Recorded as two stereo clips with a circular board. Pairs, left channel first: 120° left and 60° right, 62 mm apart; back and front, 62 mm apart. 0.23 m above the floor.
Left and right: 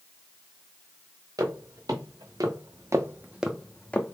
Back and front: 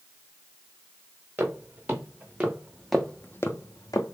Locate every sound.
1.4 s footsteps: 55° right, 1.5 m; by 4.2 s straight behind, 0.8 m